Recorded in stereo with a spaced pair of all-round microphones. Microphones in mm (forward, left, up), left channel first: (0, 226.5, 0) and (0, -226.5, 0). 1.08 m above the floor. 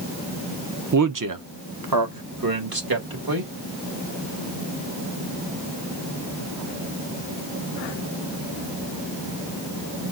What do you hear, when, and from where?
0.9 s a man speaking: 40° right (ahead or behind), 0.5 m; by 3.5 s 50° right (ahead or behind), 1.8 m